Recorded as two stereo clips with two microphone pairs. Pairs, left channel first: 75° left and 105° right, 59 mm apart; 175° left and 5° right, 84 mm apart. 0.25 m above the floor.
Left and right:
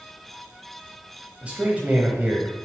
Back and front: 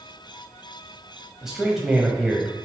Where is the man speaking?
80° right, 1.0 m.